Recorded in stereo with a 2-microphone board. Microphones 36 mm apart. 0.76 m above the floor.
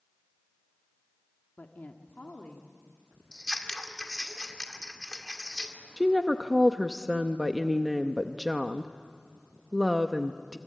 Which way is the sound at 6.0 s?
5° right (ahead or behind).